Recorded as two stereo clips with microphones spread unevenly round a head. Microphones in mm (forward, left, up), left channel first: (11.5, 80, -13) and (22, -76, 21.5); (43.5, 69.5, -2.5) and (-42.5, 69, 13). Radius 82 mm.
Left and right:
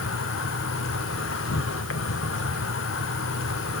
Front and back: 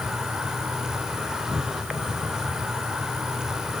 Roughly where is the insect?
Left.